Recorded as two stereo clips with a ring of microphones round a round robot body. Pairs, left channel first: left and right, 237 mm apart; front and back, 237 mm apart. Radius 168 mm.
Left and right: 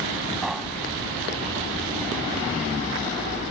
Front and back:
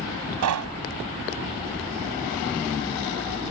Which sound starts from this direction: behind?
Knocking, at 0.4 s.